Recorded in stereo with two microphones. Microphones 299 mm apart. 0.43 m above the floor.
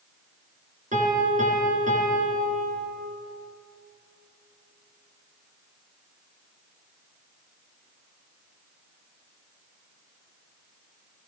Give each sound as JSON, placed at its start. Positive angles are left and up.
{"t": 0.9, "sound": "a piano", "side_deg": -25, "distance_m": 5.0}